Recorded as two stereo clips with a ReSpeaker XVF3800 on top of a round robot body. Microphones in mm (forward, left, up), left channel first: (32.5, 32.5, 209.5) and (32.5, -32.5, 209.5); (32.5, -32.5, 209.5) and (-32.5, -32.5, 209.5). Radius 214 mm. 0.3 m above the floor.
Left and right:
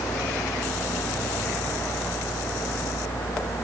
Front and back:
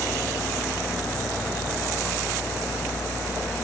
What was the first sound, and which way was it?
Only background noise.